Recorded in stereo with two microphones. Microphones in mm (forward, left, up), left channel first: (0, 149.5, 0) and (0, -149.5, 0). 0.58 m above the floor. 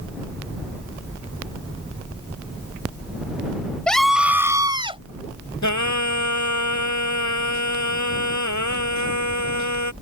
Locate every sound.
3.9 s a scream: 5° left (ahead or behind); by 5.0 s 20° right (ahead or behind)
5.6 s singing: 70° left (ahead or behind)